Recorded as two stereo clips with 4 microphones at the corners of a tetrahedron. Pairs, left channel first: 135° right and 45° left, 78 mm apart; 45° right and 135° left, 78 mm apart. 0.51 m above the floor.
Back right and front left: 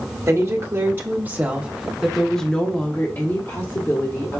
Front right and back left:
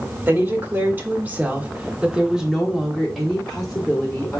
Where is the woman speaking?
80° left, 1.3 m; by 4.4 s 115° right, 1.3 m.